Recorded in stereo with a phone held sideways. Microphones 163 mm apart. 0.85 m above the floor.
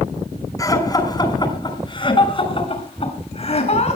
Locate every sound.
0.6 s laughter: 20° left (ahead or behind), 6.5 m; by 4.0 s 45° left (ahead or behind), 8 m